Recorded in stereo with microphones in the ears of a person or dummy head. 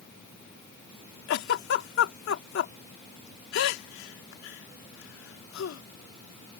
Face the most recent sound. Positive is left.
turn(degrees=75)  # may be behind; listen again after turning